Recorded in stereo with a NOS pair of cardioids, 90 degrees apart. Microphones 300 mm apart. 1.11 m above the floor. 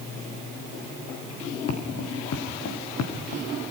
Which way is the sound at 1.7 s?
55° left.